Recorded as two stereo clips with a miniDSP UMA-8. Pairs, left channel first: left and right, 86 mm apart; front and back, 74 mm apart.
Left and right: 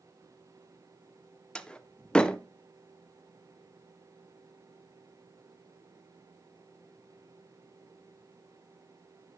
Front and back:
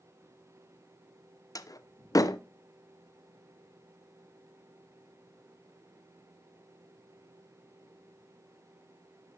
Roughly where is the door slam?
Ahead.